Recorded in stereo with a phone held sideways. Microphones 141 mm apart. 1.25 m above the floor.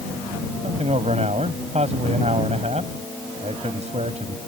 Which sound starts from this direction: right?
A man speaking, at 0.6 s.